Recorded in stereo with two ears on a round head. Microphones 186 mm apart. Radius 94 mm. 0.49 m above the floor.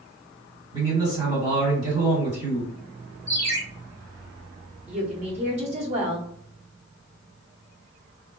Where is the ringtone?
60° right (ahead or behind), 1.8 m.